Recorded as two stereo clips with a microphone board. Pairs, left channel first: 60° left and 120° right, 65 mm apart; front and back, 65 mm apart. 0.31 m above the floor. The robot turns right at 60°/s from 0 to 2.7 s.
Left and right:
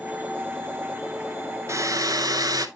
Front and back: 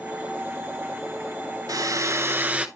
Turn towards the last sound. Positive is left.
turn(degrees=-105)